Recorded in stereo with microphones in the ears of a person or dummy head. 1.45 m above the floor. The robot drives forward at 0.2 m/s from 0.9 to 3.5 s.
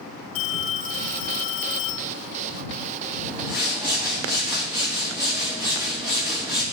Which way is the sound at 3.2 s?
20° right (ahead or behind).